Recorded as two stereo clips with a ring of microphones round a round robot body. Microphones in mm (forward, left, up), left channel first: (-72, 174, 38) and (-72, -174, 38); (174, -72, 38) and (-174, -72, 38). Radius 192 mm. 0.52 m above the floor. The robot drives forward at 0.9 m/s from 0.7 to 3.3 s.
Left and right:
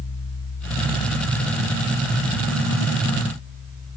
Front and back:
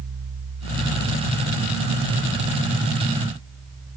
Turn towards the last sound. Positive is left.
No sound to turn to.